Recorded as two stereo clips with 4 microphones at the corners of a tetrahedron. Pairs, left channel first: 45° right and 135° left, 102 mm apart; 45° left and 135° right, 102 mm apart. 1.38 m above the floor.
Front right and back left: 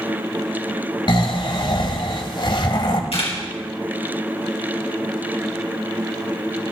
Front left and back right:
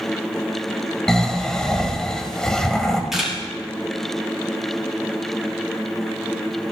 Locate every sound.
1.1 s snoring: 35° right, 1.7 m
3.1 s a camera shutter: 50° right, 5.5 m